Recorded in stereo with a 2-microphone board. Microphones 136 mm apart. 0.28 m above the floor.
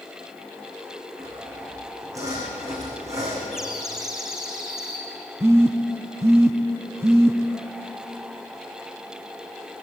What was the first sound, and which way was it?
Sawing, 25° right (ahead or behind).